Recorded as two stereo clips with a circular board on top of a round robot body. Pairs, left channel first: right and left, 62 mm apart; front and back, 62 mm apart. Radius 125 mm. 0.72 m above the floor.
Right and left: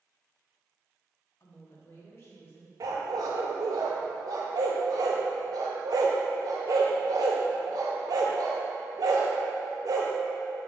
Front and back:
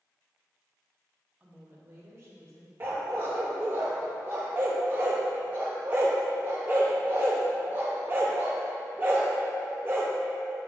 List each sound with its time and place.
1.4 s a woman speaking: 115° right, 1.3 m; by 2.7 s 145° right, 2.5 m
2.8 s a dog barking: 120° left, 0.6 m